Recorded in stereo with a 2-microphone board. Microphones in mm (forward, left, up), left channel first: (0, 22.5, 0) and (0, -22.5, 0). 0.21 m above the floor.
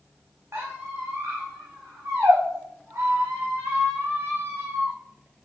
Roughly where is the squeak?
Right.